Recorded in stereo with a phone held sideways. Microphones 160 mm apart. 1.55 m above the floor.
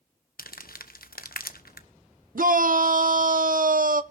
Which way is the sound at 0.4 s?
75° left (ahead or behind).